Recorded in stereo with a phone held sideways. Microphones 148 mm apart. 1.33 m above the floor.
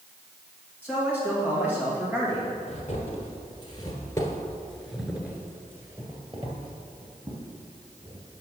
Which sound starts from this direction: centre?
A man speaking, at 0.8 s.